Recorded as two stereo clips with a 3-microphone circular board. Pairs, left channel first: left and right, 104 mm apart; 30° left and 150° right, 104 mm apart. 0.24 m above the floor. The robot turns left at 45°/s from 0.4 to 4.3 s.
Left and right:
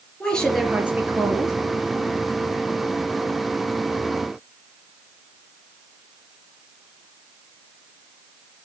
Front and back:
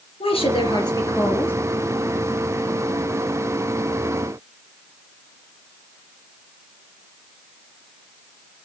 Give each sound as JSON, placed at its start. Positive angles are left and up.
{"t": 0.2, "sound": "a woman speaking", "azimuth_deg": 5, "distance_m": 3.5}